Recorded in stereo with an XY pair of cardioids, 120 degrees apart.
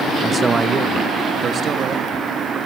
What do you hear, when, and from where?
0.2 s a man speaking: 20° right, 1.5 m; by 2.3 s 50° right, 3 m